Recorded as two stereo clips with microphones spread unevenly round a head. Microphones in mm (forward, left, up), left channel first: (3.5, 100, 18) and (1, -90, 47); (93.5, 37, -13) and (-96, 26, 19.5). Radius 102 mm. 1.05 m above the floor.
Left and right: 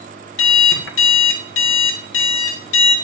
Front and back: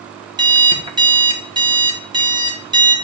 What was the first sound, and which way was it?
An alarm clock, 115° left.